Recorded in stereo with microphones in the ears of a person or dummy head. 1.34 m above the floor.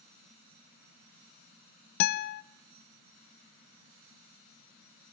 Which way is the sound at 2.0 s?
60° left (ahead or behind).